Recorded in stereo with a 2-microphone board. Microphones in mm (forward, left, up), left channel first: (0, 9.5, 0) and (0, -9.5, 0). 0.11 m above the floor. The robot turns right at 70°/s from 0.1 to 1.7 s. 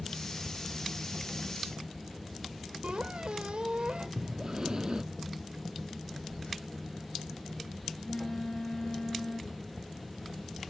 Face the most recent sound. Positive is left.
turn(degrees=70)  # may be behind; listen again after turning